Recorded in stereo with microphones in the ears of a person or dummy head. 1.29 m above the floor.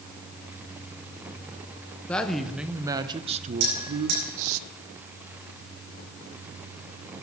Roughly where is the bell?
Right.